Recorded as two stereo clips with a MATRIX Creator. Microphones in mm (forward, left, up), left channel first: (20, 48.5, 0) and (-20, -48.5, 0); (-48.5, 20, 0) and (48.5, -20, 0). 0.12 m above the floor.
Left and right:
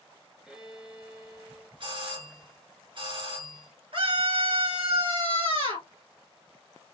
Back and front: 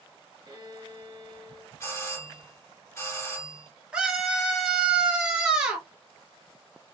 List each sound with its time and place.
0.5 s a violin: 30° right, 2 m
1.8 s a doorbell: 140° right, 3.5 m
3.9 s a scream: 100° right, 2.5 m